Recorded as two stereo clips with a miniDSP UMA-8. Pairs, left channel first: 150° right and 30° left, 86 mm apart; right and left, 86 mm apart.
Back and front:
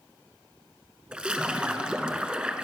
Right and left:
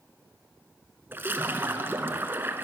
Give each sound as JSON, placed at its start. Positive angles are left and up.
{"t": 1.1, "sound": "a splash", "azimuth_deg": 90, "distance_m": 0.8}